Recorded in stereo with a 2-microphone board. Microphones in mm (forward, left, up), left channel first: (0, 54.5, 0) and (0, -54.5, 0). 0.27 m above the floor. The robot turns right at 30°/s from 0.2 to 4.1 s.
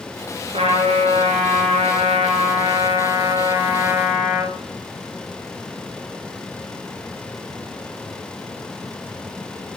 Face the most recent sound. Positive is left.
turn(degrees=-10)